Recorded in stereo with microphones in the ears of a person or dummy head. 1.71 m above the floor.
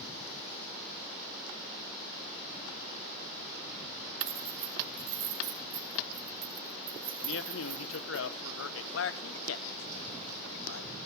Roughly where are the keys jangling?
Right.